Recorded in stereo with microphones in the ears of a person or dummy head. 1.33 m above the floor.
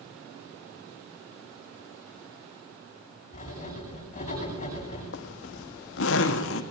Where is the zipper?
75° left (ahead or behind), 1.8 m.